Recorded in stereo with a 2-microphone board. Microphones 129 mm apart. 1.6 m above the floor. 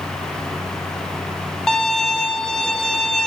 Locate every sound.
1.7 s a violin: 5° left (ahead or behind), 0.6 m